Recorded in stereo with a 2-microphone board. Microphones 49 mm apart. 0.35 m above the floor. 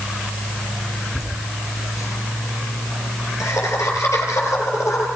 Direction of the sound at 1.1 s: 80° left.